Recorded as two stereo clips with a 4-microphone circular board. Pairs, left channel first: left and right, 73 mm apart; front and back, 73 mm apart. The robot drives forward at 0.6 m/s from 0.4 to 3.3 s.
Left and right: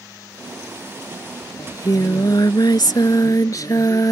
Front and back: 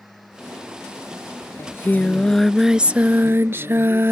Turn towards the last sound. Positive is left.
turn(degrees=125)